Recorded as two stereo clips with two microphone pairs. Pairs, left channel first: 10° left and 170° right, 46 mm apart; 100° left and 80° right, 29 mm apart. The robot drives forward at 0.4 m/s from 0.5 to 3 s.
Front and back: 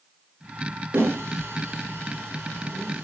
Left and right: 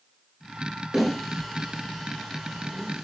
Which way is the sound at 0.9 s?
175° right.